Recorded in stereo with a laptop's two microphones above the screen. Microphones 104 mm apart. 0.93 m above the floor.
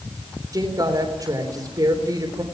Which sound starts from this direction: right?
A woman speaking, at 0.5 s.